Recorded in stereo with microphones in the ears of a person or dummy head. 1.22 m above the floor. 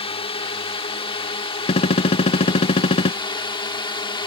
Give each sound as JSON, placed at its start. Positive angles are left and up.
{"t": 0.0, "sound": "a drone", "side_deg": 30}
{"t": 1.7, "sound": "a gunshot", "side_deg": 35}